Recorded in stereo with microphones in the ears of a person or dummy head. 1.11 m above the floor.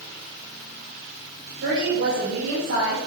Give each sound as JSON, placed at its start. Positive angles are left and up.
{"t": 1.6, "sound": "a woman speaking", "side_deg": -85, "distance_m": 5.0}